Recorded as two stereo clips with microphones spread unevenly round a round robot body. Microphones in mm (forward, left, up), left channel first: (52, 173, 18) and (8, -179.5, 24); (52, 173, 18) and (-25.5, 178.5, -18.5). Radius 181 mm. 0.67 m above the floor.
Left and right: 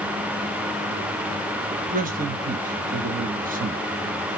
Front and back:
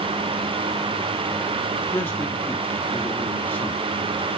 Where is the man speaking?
90° right, 0.9 m.